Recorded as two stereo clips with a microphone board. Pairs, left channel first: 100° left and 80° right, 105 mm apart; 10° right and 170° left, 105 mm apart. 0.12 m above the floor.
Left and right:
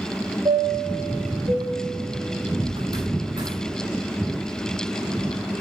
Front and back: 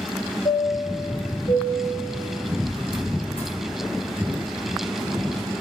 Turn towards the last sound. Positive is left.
turn(degrees=-35)